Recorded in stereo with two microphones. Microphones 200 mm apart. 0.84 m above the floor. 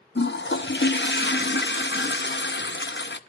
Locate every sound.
0.1 s a toilet flushing: 65° left (ahead or behind), 0.7 m